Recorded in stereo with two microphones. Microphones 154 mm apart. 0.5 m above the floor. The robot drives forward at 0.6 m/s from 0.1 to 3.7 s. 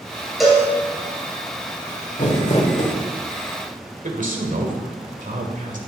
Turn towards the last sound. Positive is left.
turn(degrees=-60)  # may be behind; listen again after turning